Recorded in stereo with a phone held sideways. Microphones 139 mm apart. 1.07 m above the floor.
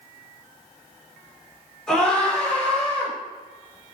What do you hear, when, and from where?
1.9 s a scream: 5° left (ahead or behind), 4 m; by 3.1 s 10° left (ahead or behind), 5.5 m